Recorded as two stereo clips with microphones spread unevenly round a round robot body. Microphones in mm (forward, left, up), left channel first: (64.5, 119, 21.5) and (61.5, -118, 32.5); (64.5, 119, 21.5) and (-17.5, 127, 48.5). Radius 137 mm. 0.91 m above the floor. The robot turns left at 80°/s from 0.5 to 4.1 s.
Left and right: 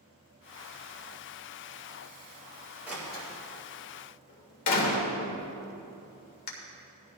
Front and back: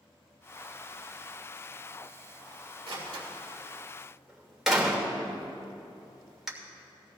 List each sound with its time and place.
2.9 s a door slam: 175° right, 2.5 m; by 6.5 s 90° left, 2.5 m